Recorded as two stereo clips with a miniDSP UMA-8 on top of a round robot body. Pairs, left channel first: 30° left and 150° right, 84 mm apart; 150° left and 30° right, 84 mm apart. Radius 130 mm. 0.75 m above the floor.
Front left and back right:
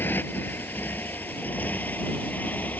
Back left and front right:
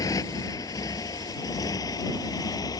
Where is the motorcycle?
100° left; by 2.8 s 105° left.